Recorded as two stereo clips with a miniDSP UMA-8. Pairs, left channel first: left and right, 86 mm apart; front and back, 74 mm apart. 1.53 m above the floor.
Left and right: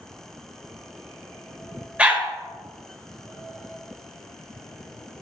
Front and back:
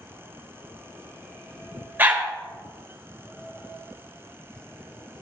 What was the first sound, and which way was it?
A dog barking, 150° right.